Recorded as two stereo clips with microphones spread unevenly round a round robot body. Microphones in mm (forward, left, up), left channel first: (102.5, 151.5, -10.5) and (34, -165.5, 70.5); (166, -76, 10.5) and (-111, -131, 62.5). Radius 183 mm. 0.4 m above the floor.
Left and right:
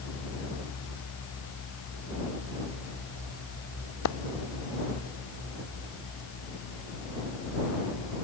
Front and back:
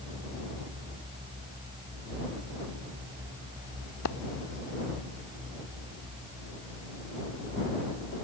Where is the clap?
50° left.